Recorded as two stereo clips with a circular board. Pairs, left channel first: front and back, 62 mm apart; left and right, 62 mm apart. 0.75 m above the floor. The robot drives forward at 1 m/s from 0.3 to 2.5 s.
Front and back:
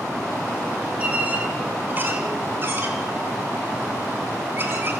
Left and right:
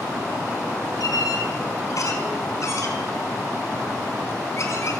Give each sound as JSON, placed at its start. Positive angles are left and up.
{"t": 1.0, "sound": "a squeak", "azimuth_deg": 110, "distance_m": 3.5}